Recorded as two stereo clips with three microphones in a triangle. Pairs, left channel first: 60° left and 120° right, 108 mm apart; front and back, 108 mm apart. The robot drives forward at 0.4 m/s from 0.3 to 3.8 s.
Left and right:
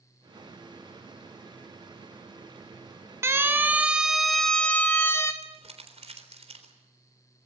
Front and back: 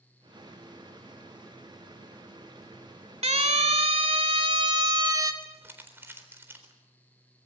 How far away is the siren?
About 2 m.